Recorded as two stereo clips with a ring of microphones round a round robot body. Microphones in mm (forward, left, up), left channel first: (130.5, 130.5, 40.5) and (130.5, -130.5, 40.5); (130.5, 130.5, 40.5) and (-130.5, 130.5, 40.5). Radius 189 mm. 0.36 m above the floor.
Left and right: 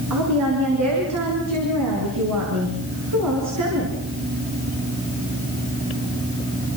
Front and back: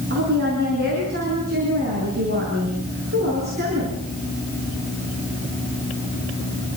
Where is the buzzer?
I don't hear a buzzer.